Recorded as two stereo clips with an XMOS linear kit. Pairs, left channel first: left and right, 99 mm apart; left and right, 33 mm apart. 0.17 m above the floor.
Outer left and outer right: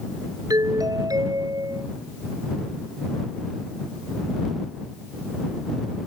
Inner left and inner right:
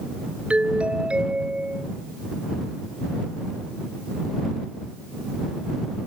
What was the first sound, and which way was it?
A doorbell, 35° right (ahead or behind).